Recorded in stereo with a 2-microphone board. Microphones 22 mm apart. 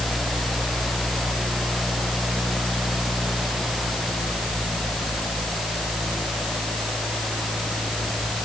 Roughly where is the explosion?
No explosion in this recording.